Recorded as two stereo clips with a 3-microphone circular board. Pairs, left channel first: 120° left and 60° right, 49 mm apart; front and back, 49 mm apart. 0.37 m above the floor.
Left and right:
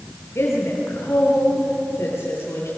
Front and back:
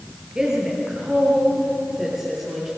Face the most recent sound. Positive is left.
turn(degrees=90)